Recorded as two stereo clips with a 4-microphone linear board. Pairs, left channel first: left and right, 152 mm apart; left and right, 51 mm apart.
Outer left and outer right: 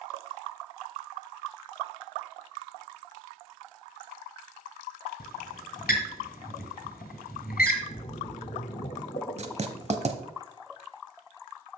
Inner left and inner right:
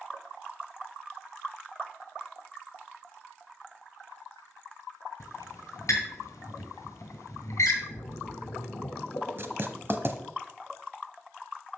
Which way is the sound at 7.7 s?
50° left (ahead or behind).